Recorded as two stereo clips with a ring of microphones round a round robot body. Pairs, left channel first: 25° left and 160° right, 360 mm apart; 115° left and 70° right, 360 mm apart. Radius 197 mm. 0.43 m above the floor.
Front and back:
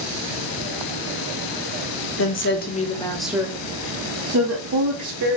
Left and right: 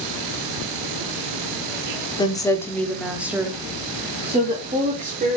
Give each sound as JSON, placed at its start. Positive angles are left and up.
{"t": 2.2, "sound": "a woman speaking", "azimuth_deg": 40, "distance_m": 0.9}